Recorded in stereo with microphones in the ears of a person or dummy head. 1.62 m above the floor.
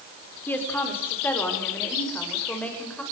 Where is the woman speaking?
10° left (ahead or behind), 5 m; by 3.0 s 5° left (ahead or behind), 7.5 m.